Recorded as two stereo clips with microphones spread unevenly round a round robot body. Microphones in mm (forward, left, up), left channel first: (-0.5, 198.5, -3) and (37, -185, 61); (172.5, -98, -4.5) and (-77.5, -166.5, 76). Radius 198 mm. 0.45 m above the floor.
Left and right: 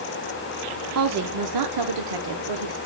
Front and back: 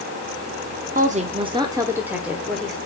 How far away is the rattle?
I don't hear a rattle.